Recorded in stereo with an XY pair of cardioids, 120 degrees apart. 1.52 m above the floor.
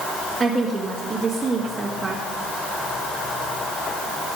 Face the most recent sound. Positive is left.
turn(degrees=-25)